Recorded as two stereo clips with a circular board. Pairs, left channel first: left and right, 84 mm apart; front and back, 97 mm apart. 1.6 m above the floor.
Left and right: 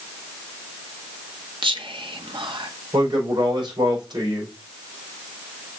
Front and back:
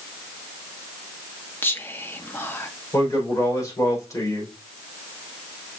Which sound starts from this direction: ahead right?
A man speaking, at 2.9 s.